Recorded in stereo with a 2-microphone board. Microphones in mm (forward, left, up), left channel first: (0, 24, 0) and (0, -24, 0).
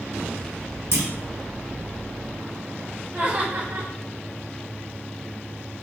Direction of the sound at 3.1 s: 55° right (ahead or behind).